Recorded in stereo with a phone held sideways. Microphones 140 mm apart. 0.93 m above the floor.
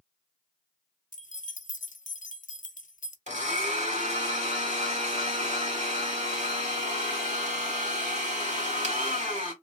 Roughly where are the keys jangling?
Left.